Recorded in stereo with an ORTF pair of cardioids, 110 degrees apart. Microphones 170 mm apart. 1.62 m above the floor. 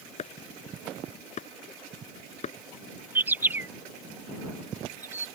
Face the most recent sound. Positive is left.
turn(degrees=-10)